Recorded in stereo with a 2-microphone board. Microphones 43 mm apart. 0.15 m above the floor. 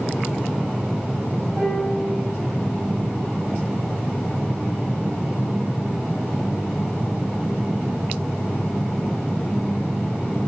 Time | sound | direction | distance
1.6 | a piano | 55° right (ahead or behind) | 3.5 m